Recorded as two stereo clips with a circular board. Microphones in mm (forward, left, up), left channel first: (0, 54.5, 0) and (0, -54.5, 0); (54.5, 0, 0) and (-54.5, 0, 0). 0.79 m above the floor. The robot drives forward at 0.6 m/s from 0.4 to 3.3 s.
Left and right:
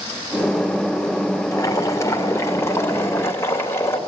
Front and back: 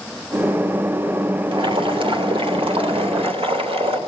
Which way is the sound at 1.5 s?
145° left.